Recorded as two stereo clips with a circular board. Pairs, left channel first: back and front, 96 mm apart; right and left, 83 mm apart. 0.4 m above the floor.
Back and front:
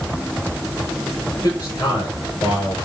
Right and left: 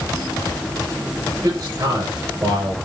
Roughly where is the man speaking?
Behind left.